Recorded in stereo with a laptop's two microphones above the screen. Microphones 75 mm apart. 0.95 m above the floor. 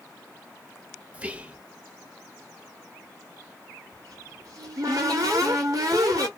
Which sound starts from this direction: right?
A cupboard door, at 3.9 s.